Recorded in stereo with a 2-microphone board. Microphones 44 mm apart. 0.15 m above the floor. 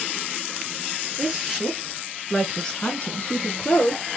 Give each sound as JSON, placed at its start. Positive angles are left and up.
{"t": 1.2, "sound": "a woman speaking", "side_deg": -15, "distance_m": 2.5}